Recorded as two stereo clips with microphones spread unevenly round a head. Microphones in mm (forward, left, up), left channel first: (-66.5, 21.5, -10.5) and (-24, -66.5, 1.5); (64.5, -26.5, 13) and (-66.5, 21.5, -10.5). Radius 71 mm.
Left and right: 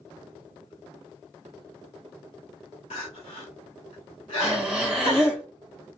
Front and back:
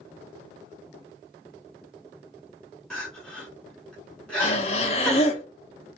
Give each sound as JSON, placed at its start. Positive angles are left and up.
{"t": 2.9, "sound": "crying", "azimuth_deg": 65, "distance_m": 1.0}
{"t": 4.4, "sound": "breathing", "azimuth_deg": 15, "distance_m": 0.6}